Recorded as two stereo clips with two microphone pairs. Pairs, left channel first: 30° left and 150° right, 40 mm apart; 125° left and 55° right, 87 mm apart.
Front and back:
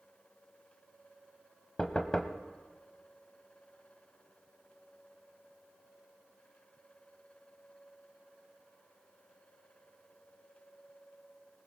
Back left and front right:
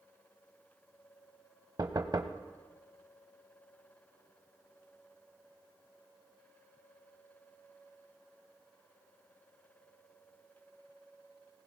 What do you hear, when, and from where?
1.8 s knocking: 30° right, 1.0 m